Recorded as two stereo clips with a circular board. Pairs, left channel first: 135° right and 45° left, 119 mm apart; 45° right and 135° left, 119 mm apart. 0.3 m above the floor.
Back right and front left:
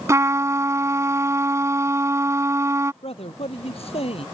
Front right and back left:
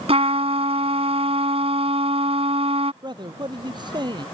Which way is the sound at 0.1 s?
110° left.